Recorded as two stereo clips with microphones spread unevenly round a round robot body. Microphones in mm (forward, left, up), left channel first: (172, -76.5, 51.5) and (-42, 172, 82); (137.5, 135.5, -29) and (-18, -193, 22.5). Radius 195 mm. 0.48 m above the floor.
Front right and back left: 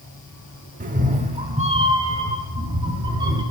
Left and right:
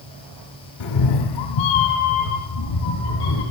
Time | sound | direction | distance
0.8 | a cat meowing | 65° left | 0.8 m